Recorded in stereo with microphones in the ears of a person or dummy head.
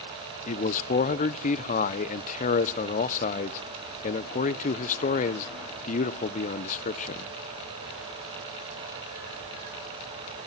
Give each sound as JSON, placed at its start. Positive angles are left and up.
{"t": 0.5, "sound": "a man speaking", "side_deg": 40, "distance_m": 0.9}